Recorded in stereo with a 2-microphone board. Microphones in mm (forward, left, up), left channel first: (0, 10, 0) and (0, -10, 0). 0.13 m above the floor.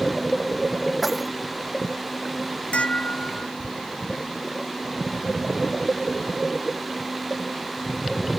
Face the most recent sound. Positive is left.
turn(degrees=80)